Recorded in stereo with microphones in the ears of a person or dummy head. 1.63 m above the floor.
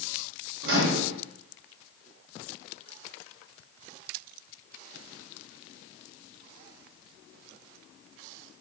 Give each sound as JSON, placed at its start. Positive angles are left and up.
{"t": 0.6, "sound": "a microwave", "side_deg": -70, "distance_m": 1.1}